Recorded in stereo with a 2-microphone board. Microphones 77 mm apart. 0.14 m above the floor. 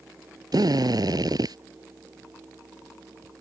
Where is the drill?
60° right (ahead or behind).